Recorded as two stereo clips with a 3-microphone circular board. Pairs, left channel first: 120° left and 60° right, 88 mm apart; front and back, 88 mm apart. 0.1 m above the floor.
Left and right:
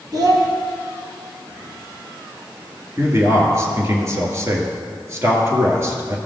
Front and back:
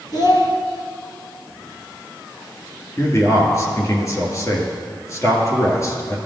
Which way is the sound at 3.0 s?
30° right.